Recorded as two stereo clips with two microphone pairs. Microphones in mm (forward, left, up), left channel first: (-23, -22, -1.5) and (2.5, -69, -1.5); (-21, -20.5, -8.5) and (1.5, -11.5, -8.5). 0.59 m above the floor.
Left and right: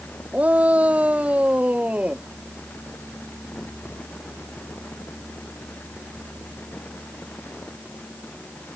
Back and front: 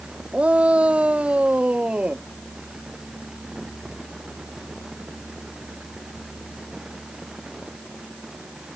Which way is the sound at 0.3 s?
Straight ahead.